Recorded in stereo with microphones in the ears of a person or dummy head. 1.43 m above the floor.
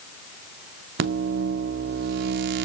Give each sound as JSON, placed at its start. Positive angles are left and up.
{"t": 1.0, "sound": "a microwave", "side_deg": -40, "distance_m": 0.6}